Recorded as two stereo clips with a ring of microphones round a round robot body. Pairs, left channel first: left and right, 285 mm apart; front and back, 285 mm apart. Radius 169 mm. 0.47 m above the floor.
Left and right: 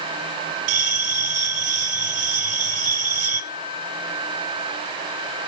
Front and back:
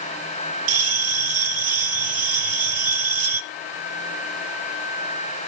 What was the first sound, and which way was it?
A bell, 135° right.